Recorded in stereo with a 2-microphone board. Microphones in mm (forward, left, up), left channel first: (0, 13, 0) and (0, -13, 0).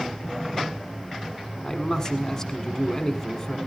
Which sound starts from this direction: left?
A man speaking, at 1.6 s.